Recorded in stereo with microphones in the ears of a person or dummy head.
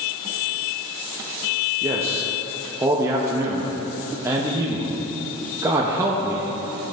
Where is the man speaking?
15° right (ahead or behind), 0.7 m.